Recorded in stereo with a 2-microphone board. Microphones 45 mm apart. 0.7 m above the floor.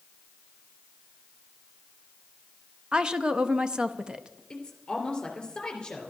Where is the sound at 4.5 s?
15° left (ahead or behind), 3 m.